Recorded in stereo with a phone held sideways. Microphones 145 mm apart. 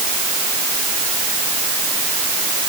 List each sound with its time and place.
Only background noise.